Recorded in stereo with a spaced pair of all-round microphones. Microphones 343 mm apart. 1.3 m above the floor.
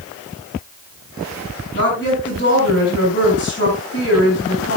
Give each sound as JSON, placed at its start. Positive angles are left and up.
{"t": 1.7, "sound": "a woman speaking", "side_deg": 35, "distance_m": 6.5}